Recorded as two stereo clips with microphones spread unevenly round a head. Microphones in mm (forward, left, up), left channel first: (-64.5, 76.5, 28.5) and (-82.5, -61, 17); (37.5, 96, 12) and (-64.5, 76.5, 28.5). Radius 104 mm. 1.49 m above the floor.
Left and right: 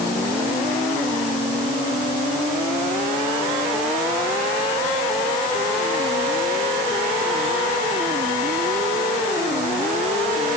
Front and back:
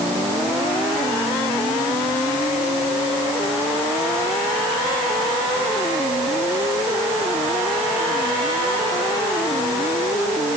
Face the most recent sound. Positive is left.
No sound to turn to.